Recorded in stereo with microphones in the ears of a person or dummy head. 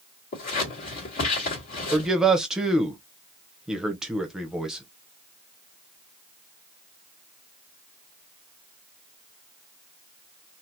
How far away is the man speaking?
About 0.6 m.